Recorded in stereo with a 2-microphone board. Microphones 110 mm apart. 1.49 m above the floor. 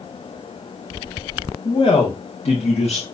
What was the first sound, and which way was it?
A man speaking, 50° left (ahead or behind).